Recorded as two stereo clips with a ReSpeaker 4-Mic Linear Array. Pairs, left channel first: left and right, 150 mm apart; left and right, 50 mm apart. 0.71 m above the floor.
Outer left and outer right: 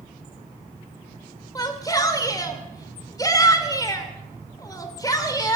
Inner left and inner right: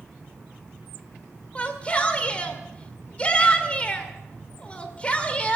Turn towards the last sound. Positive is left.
turn(degrees=25)  # may be behind; listen again after turning